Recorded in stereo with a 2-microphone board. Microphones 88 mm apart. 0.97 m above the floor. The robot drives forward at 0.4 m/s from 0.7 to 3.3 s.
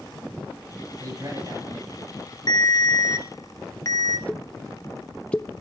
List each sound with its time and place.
1.0 s a man speaking: 45° right (ahead or behind), 8 m; by 2.4 s 40° right (ahead or behind), 8 m
2.5 s a ringtone: 50° left (ahead or behind), 0.7 m; by 4.2 s 35° left (ahead or behind), 0.9 m
4.3 s a pop: 15° left (ahead or behind), 0.5 m